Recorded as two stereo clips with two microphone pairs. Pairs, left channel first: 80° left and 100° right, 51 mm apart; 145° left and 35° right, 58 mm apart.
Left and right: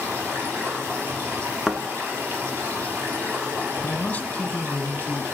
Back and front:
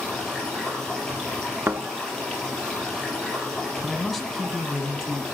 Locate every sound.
0.0 s running water: 135° right, 3.5 m
1.7 s a thud: 10° right, 0.6 m
3.8 s a man speaking: 60° left, 1.1 m